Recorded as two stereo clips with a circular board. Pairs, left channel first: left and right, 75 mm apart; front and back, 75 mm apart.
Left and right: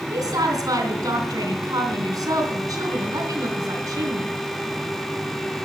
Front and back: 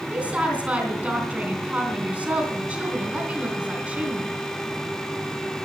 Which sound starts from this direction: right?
A woman speaking, at 0.1 s.